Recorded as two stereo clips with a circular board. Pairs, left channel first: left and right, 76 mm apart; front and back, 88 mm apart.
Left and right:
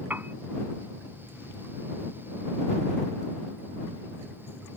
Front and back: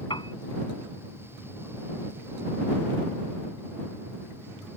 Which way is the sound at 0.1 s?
25° right.